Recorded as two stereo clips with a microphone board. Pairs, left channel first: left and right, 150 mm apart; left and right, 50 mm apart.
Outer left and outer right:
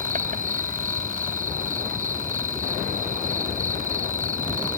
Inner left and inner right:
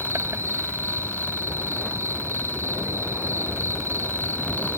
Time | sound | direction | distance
0.0 | an insect | 65° right (ahead or behind) | ?